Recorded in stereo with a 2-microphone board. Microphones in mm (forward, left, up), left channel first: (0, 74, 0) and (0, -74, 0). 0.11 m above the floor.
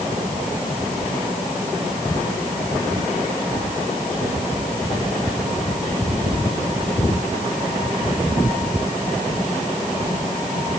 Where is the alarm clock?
I don't hear an alarm clock.